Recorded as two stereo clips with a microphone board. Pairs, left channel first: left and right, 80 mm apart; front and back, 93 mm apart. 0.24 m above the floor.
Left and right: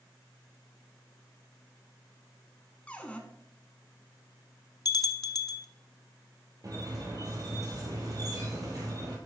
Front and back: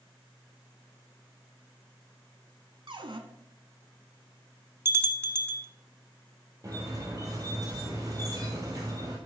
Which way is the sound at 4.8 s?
120° left.